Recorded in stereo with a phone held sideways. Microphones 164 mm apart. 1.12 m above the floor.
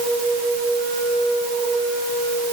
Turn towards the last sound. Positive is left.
No sound to turn to.